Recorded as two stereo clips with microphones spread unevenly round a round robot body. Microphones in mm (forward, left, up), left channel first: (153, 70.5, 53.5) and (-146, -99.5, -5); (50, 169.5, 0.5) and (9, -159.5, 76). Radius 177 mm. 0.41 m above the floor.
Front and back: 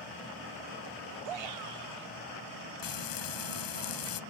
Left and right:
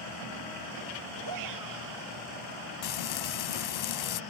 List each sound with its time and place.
1.2 s a shout: 140° right
2.8 s frying: 65° left